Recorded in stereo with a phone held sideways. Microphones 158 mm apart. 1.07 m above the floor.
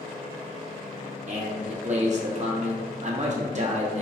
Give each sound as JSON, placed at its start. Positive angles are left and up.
{"t": 1.3, "sound": "a man speaking", "side_deg": -50, "distance_m": 0.8}